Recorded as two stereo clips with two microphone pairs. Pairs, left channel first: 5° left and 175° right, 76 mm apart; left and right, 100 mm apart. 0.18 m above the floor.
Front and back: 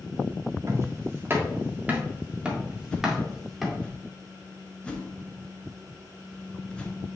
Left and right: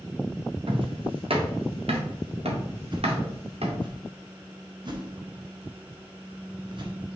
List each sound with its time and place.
0.7 s footsteps: 120° right, 2 m; by 3.9 s 80° right, 3 m
2.9 s a whoosh: 65° right, 1.4 m